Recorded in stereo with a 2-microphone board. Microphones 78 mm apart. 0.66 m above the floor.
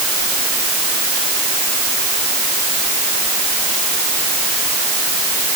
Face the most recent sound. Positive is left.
No sound to turn to.